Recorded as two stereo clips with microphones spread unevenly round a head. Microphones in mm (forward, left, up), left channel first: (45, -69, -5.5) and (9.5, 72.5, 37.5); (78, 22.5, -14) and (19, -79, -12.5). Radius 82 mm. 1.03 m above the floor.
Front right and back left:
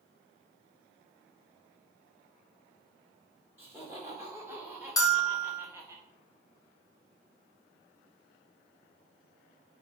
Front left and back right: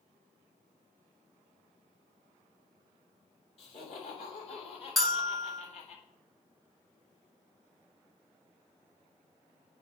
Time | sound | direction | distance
3.6 | laughter | 30° left | 3 m
5.0 | a bell | 30° right | 0.9 m